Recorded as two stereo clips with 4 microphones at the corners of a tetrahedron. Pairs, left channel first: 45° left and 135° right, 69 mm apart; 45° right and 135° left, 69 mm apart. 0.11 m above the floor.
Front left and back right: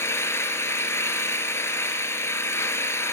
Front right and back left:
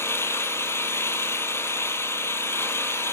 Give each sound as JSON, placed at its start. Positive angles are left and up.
{"t": 0.0, "sound": "an engine running", "azimuth_deg": 0, "distance_m": 0.8}